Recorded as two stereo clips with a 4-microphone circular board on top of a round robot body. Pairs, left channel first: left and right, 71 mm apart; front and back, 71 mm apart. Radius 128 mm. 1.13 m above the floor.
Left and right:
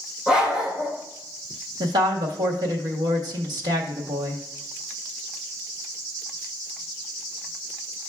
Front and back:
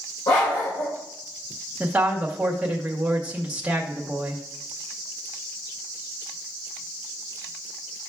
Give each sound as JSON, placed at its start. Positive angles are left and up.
{"t": 0.3, "sound": "a dog barking", "azimuth_deg": -10, "distance_m": 2.0}
{"t": 1.8, "sound": "a woman speaking", "azimuth_deg": -105, "distance_m": 1.6}